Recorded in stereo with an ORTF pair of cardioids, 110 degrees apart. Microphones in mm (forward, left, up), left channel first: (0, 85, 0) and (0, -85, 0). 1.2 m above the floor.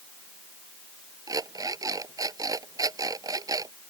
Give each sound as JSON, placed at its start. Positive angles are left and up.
{"t": 1.3, "sound": "an alarm clock", "azimuth_deg": -20}